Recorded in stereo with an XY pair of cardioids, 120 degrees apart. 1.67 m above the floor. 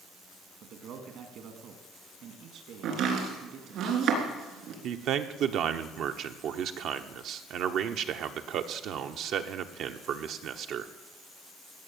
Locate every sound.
0.6 s a man speaking: 65° right, 2.5 m
2.8 s chopping: 70° right, 3.5 m
4.8 s a man speaking: 65° right, 1.1 m